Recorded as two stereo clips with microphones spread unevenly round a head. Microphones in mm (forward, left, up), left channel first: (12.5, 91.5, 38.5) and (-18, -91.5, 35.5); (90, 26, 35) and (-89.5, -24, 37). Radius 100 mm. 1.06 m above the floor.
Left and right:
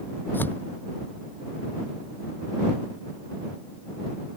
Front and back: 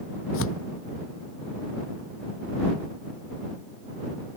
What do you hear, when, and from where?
0.3 s tearing paper: straight ahead